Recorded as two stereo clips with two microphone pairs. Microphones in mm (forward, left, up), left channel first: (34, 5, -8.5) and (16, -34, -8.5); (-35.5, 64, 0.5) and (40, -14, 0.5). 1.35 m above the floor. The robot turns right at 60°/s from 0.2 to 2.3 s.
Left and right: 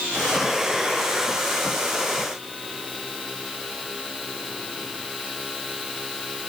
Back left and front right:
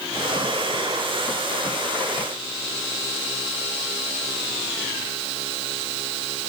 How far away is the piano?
No piano in this recording.